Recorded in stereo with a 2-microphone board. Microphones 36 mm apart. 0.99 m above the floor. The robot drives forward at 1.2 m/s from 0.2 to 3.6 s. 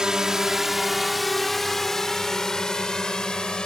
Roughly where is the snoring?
No snoring in this recording.